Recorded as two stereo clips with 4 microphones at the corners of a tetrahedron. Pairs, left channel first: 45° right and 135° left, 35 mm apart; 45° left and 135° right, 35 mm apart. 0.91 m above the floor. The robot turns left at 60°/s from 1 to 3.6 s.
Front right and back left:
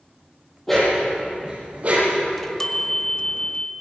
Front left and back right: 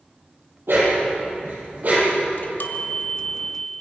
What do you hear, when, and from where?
0.7 s a dog barking: 125° right, 10 m; by 2.2 s 160° left, 10 m
2.3 s a chime: 45° left, 1.5 m; by 3.7 s 35° right, 1.5 m